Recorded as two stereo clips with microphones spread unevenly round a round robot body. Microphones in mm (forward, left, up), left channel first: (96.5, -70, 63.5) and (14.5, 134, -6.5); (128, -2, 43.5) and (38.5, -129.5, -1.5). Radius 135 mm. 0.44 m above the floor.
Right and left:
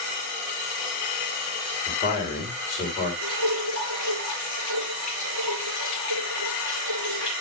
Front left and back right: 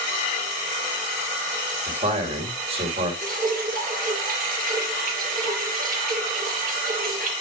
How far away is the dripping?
About 4 m.